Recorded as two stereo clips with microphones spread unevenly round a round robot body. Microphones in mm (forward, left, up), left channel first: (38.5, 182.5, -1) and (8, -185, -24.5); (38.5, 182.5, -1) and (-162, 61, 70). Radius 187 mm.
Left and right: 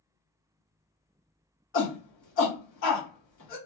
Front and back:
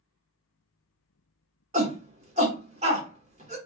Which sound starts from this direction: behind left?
A shout, at 1.7 s.